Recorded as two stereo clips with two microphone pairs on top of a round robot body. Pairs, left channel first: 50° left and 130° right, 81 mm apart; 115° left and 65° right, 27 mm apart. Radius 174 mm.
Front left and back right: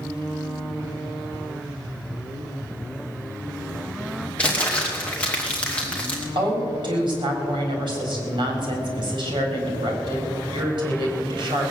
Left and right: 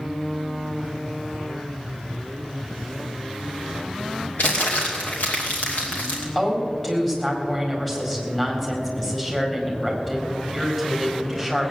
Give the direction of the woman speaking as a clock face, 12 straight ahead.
5 o'clock.